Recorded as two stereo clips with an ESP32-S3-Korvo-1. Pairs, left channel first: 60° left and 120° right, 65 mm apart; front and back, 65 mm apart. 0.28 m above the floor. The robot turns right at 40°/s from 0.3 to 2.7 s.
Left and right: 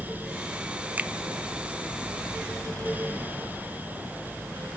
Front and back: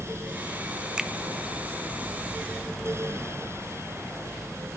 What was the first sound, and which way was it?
A finger snap, 115° right.